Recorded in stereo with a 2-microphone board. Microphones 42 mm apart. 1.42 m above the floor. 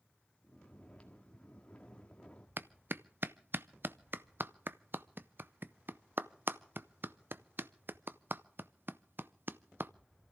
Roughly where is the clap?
Right.